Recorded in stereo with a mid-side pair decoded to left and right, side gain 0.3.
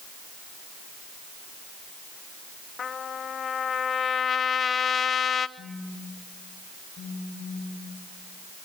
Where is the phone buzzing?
60° left, 2.5 m.